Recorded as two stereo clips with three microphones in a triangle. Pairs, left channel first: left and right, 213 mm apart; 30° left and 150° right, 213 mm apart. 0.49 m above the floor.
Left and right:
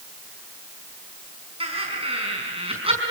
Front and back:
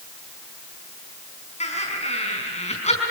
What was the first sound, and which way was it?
Laughter, 30° right.